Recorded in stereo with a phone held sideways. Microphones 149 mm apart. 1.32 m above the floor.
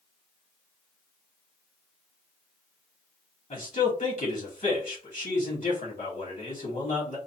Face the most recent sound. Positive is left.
turn(degrees=60)  # may be behind; listen again after turning